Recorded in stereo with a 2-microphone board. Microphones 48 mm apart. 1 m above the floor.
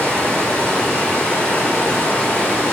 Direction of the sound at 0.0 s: 25° left (ahead or behind).